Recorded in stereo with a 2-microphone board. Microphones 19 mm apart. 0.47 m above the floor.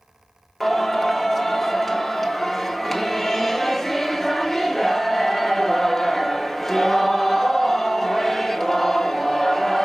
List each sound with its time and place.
0.6 s singing: centre (ahead or behind), 1.2 m